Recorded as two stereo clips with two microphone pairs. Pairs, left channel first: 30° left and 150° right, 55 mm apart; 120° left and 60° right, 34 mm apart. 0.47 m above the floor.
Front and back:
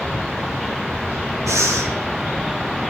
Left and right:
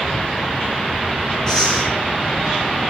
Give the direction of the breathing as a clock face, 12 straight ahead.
6 o'clock.